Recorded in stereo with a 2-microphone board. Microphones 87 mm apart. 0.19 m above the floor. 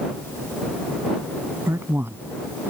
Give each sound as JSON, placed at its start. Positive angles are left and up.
{"t": 1.7, "sound": "a man speaking", "side_deg": -30}